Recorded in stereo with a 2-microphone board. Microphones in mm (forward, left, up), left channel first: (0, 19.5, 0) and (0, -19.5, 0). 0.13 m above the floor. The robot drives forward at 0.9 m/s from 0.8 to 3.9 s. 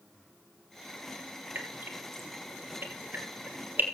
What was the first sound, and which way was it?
Dripping, 60° right (ahead or behind).